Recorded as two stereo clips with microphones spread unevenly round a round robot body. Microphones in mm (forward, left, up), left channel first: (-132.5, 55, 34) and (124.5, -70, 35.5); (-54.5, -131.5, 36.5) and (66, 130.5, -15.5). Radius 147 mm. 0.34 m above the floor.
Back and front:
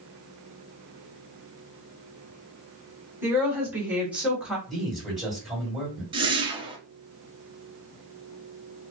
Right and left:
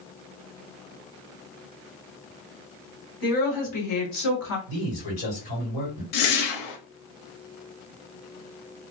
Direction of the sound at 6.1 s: 100° right.